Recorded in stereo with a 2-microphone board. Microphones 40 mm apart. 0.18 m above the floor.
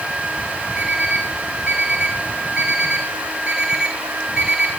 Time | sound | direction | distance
0.8 | an alarm clock | 20° right (ahead or behind) | 5 m